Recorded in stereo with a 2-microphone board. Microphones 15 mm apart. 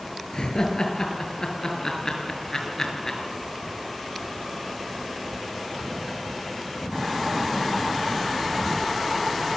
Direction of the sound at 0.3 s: 55° left (ahead or behind).